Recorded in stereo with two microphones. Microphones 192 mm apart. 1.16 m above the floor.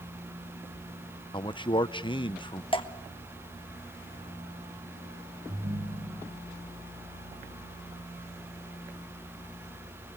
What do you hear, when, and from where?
1.3 s a man speaking: 25° left (ahead or behind), 0.8 m
2.7 s dripping: 25° left (ahead or behind), 1.3 m
5.5 s a ringtone: 50° right (ahead or behind), 3.5 m